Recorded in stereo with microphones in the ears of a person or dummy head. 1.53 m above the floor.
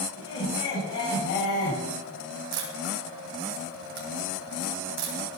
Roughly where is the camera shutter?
Right.